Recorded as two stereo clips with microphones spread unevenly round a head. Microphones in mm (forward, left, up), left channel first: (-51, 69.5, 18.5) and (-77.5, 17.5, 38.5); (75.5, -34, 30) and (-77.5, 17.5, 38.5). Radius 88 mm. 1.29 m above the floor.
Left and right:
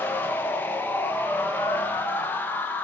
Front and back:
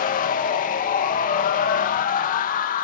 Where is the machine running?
10° left, 1.1 m.